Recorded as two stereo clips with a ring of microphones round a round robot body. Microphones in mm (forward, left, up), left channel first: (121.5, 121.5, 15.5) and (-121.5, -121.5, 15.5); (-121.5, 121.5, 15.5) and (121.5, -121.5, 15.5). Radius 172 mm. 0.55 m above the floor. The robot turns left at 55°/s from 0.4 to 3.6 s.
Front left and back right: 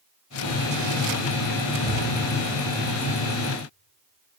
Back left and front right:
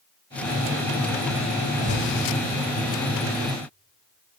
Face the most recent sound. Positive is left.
turn(degrees=-75)